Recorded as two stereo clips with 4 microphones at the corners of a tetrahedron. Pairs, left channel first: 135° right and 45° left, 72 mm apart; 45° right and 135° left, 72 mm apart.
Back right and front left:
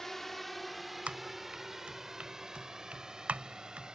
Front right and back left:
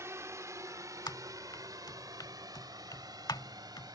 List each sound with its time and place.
0.0 s a drone: 145° left; by 4.0 s 125° left
1.1 s typing on a keyboard: 25° right